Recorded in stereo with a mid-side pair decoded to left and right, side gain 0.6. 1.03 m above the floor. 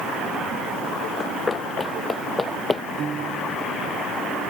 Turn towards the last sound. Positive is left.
turn(degrees=-40)